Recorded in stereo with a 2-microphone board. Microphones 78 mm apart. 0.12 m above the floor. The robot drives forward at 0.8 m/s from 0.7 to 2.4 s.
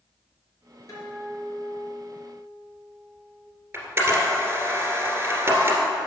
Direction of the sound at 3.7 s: 25° right (ahead or behind).